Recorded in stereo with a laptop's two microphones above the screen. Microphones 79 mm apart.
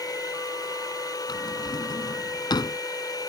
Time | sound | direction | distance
0.0 | a machine running | 55° left (ahead or behind) | ?
1.3 | a drawer | 65° left (ahead or behind) | ?